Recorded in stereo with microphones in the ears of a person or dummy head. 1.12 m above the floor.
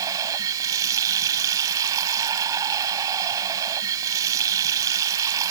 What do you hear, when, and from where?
0.0 s running water: 20° right (ahead or behind)